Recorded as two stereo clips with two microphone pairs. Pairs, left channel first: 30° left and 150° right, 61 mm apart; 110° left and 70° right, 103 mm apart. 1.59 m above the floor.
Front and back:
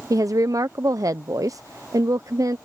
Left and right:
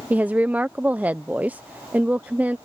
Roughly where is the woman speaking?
Behind right.